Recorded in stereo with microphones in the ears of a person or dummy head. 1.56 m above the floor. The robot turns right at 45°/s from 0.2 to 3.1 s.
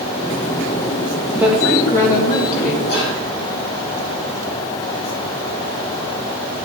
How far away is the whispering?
About 2 m.